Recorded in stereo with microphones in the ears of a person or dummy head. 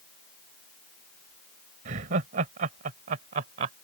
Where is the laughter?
45° right (ahead or behind).